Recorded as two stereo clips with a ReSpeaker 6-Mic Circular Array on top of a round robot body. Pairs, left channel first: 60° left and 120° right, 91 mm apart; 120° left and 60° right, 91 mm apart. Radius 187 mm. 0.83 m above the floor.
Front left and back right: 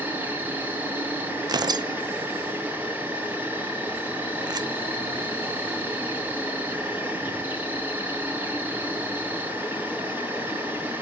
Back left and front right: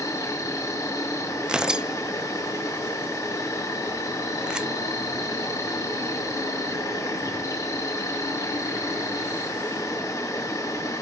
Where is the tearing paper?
140° right, 0.7 m.